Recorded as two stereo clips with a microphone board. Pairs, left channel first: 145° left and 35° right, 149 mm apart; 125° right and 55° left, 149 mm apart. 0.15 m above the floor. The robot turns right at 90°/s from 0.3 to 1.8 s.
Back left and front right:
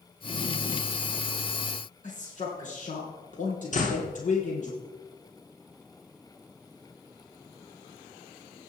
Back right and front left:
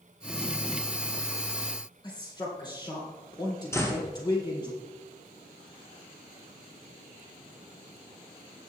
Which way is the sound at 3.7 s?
165° left.